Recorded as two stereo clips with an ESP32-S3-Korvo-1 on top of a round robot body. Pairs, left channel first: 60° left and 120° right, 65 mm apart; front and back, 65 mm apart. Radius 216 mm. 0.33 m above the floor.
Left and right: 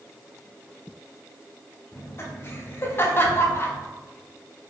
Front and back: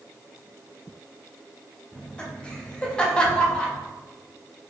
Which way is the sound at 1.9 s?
65° left.